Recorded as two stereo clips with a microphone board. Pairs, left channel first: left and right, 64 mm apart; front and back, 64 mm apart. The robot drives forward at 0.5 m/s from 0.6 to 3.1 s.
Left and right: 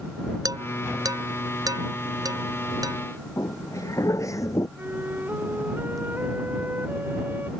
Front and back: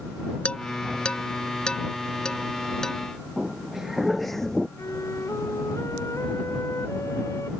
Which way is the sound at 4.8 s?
35° right.